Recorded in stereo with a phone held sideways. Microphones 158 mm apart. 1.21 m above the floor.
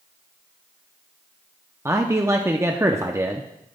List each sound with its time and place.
1.9 s a man speaking: 15° right (ahead or behind), 0.6 m